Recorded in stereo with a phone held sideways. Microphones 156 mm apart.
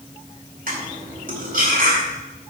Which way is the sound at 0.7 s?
70° right (ahead or behind).